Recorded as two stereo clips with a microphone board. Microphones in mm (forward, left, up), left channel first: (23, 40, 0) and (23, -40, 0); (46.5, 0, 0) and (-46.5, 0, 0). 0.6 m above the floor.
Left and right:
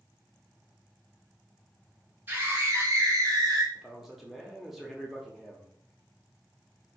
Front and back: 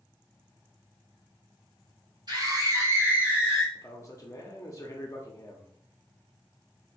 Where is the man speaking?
5° right, 0.9 m.